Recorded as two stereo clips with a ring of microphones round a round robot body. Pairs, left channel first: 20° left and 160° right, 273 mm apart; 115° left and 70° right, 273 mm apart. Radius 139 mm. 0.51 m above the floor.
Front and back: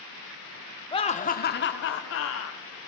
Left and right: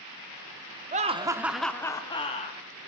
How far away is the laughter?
About 1.2 m.